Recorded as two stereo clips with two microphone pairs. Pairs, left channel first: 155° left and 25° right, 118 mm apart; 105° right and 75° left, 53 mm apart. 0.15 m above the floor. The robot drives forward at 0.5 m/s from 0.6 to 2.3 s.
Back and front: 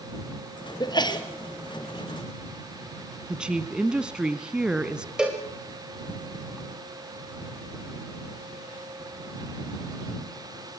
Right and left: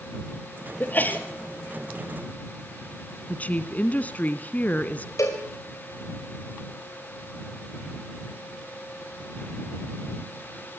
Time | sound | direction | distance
0.8 | a sneeze | 155° right | 3.5 m
3.3 | a woman speaking | 95° right | 1.1 m
5.2 | a cowbell | 105° right | 5 m